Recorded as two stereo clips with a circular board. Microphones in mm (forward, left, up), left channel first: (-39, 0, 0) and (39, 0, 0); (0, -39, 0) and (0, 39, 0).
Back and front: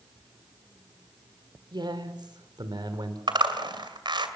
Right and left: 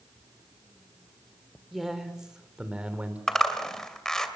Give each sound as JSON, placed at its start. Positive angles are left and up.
{"t": 1.7, "sound": "a man speaking", "azimuth_deg": 0, "distance_m": 3.0}
{"t": 3.3, "sound": "a zipper", "azimuth_deg": -5, "distance_m": 2.5}